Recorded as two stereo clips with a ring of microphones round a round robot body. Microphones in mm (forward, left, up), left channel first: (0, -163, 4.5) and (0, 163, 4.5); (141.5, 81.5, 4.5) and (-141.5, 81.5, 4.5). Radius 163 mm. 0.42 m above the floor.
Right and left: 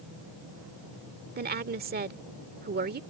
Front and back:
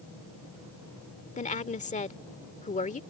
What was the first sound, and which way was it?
A woman speaking, 50° left.